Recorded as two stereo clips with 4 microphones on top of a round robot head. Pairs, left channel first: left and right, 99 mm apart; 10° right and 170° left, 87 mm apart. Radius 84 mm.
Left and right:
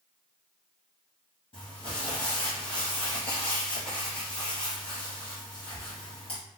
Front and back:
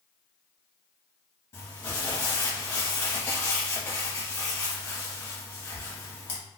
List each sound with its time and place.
1.5 s crumpling: 40° left, 0.9 m